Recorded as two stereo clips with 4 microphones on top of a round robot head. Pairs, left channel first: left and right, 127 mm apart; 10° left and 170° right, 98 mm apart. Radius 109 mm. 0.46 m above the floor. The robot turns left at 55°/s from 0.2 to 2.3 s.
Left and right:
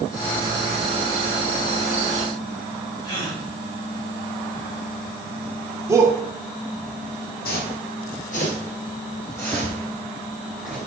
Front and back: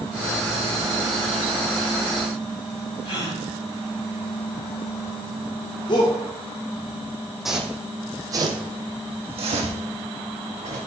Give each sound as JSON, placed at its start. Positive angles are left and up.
{"t": 3.0, "sound": "a gasp", "azimuth_deg": 35, "distance_m": 4.0}
{"t": 5.9, "sound": "a shout", "azimuth_deg": -25, "distance_m": 1.2}
{"t": 7.5, "sound": "footsteps", "azimuth_deg": 100, "distance_m": 1.4}